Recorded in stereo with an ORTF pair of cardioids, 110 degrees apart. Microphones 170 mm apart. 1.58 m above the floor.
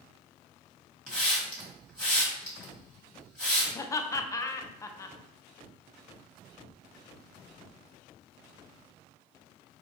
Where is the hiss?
5° left, 1.7 m.